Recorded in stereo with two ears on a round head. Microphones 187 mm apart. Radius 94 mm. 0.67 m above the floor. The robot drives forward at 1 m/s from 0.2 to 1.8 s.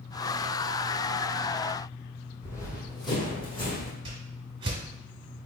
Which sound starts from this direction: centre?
Running footsteps, at 2.4 s.